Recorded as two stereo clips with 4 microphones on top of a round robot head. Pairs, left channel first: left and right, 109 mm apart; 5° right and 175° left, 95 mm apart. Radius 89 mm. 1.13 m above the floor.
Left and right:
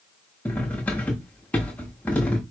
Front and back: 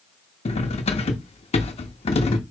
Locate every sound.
0.5 s cutlery clinking: 10° left, 0.9 m